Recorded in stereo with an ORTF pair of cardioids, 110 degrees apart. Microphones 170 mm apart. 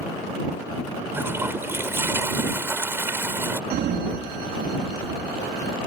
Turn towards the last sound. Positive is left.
turn(degrees=-65)